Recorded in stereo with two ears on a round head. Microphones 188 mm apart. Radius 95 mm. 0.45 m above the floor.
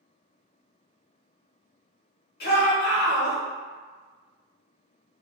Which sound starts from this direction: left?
A shout, at 2.4 s.